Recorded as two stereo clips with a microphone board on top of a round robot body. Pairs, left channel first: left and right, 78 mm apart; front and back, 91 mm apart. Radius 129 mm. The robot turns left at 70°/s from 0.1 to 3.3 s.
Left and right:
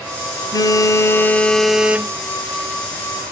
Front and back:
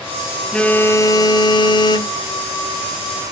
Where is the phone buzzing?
80° left, 0.7 m; by 2.2 s 35° right, 0.7 m.